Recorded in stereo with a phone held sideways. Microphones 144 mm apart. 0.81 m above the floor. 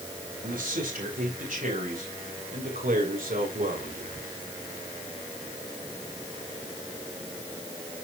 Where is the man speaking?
80° right, 4.5 m; by 4.3 s 70° right (ahead or behind), 2.5 m.